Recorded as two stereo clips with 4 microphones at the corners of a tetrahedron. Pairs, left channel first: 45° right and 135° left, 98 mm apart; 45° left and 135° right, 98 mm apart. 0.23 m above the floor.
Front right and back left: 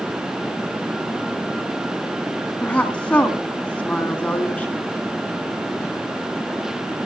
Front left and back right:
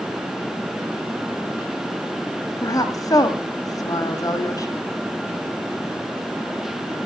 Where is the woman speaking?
25° left, 2 m.